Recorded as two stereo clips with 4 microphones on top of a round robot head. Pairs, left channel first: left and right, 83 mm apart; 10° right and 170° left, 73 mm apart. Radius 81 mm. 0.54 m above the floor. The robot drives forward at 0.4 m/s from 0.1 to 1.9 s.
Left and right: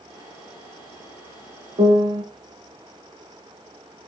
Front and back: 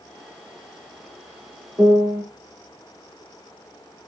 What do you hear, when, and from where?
1.8 s a piano: 115° right, 1.3 m